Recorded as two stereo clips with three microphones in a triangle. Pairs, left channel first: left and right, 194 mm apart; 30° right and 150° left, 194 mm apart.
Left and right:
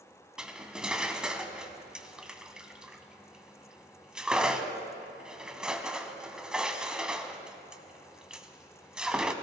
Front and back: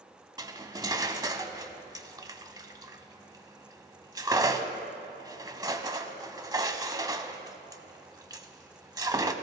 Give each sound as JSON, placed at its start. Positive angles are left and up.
{"t": 0.4, "sound": "cutlery clinking", "azimuth_deg": -170, "distance_m": 0.6}